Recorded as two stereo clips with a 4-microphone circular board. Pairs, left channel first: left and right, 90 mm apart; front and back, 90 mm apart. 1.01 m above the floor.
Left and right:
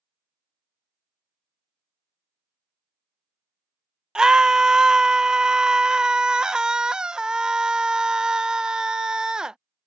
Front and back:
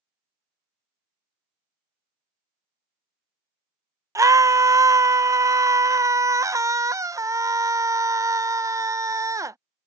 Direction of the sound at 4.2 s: 170° right.